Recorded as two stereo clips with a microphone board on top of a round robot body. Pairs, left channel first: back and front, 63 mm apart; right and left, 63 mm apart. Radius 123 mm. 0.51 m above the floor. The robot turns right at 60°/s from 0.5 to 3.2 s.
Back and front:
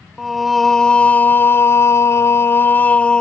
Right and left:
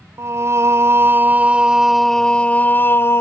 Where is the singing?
90° left; by 3.2 s 110° right.